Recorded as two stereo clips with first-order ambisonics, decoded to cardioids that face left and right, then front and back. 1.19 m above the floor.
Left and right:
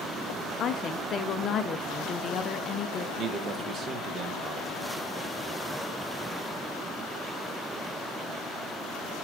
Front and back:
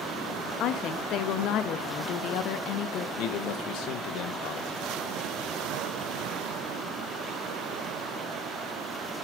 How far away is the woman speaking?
About 0.6 m.